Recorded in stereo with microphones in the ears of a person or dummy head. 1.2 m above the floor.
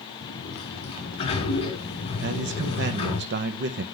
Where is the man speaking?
60° right (ahead or behind), 0.7 m.